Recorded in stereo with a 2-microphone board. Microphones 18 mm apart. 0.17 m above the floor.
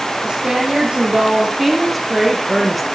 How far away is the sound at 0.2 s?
About 5.5 m.